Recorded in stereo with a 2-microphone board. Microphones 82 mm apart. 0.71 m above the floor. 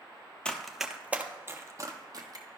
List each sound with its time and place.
0.5 s running footsteps: 10° left (ahead or behind), 0.7 m; by 2.5 s 55° right (ahead or behind), 1.1 m